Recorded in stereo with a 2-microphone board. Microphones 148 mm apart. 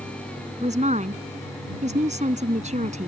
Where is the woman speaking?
50° right (ahead or behind).